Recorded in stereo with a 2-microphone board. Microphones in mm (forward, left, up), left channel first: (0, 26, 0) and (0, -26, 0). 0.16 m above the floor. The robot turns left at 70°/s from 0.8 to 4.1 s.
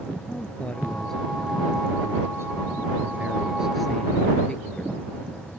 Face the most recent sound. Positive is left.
turn(degrees=160)